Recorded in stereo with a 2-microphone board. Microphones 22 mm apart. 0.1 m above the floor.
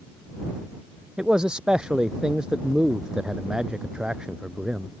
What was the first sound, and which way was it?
A man speaking, 45° right (ahead or behind).